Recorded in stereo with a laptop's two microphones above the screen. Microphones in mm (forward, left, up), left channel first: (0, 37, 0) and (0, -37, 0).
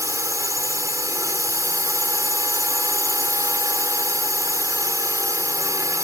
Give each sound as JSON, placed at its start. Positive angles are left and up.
{"t": 0.0, "sound": "a drone", "side_deg": -50}